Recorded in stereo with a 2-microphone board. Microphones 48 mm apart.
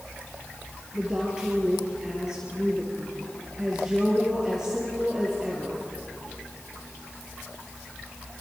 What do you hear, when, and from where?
0.9 s a woman speaking: 15° right (ahead or behind), 4.5 m